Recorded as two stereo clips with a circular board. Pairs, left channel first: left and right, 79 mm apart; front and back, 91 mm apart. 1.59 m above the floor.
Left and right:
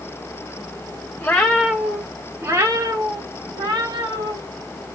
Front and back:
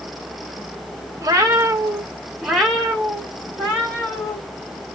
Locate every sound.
1.2 s a cat meowing: 150° left, 1.6 m; by 4.4 s 65° right, 3.5 m